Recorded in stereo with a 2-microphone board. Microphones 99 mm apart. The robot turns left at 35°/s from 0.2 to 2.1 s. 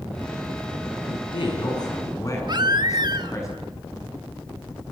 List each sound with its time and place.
1.1 s a man speaking: 70° left, 8 m; by 3.5 s 30° left, 8 m
2.5 s a baby crying: 45° right (ahead or behind), 1.1 m